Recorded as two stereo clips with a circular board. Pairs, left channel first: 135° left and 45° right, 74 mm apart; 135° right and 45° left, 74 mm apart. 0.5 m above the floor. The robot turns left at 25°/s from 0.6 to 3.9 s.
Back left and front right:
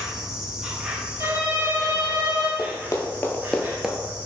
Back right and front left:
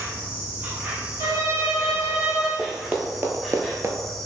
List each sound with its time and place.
0.0 s an insect: 20° left, 0.8 m; by 4.3 s 60° right, 0.8 m
1.2 s a violin: 10° left, 1.1 m; by 2.5 s 25° right, 1.1 m
2.6 s running footsteps: 125° left, 0.9 m; by 4.0 s 25° left, 0.6 m